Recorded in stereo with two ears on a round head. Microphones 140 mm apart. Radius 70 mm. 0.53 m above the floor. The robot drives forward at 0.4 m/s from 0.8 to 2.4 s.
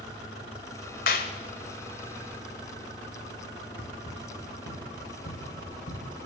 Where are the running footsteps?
85° left, 6 m; by 6.1 s 70° left (ahead or behind), 7.5 m.